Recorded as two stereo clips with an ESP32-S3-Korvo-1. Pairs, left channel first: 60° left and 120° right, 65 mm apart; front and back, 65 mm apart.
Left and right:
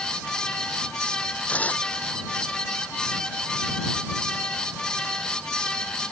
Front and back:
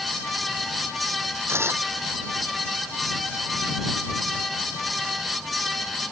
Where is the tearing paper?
130° left.